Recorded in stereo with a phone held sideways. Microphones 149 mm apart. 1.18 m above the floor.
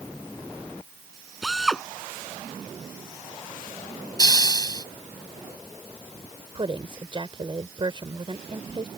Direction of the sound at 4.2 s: 25° left (ahead or behind).